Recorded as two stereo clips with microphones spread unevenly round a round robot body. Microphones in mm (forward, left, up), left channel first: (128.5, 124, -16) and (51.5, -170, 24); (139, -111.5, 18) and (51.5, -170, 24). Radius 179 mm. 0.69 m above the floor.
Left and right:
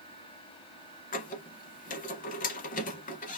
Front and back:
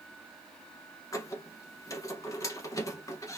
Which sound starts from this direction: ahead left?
A squeak, at 1.1 s.